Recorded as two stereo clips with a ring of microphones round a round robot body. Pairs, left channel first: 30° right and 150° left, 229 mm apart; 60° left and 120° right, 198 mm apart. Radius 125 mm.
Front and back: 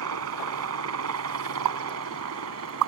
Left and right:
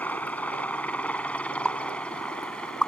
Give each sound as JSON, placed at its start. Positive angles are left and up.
{"t": 0.0, "sound": "a helicopter", "azimuth_deg": 140}
{"t": 1.6, "sound": "a pop", "azimuth_deg": 145}